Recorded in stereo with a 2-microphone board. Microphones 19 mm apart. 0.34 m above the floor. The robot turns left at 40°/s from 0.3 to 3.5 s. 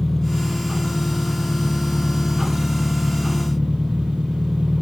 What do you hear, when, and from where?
0.0 s an engine running: 10° left, 5.5 m; by 4.8 s 115° right, 5.5 m